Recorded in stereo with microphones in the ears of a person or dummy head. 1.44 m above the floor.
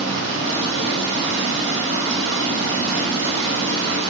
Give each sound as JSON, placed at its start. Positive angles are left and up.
{"t": 0.0, "sound": "running water", "side_deg": -65, "distance_m": 1.3}